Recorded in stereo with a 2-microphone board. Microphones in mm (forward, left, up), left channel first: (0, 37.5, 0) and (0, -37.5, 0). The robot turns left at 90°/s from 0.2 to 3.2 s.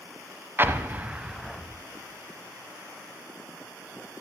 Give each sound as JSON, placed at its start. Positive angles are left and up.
{"t": 0.6, "sound": "an explosion", "side_deg": -30, "distance_m": 0.6}